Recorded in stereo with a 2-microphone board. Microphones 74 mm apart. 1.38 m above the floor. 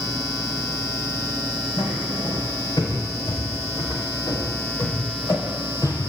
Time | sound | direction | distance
1.8 | footsteps | 75° left (ahead or behind) | 5 m